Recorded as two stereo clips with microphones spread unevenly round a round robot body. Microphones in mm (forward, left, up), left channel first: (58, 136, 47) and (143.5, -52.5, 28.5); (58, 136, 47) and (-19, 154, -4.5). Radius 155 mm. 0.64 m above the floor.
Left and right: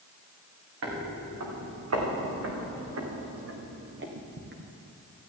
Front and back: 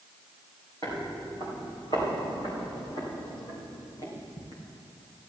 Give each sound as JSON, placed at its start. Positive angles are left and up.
{"t": 0.8, "sound": "footsteps", "azimuth_deg": -80, "distance_m": 3.0}